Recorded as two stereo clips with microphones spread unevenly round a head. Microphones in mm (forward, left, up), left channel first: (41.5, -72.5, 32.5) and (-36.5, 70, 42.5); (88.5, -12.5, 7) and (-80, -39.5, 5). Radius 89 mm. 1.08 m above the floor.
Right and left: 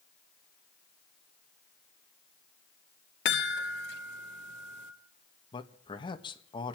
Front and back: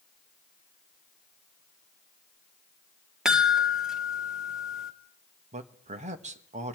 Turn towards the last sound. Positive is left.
turn(degrees=-120)